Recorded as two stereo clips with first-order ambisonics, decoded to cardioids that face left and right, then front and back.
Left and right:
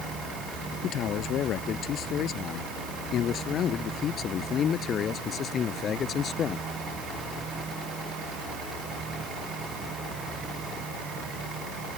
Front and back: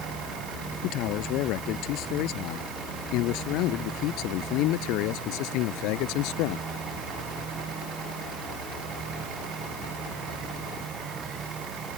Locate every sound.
0.8 s a man speaking: 40° left; by 6.7 s 25° left